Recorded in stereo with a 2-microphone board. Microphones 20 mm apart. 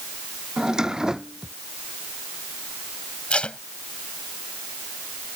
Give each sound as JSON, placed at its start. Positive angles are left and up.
{"t": 0.6, "sound": "a drawer", "side_deg": -35}
{"t": 3.3, "sound": "tape being pulled", "side_deg": 65}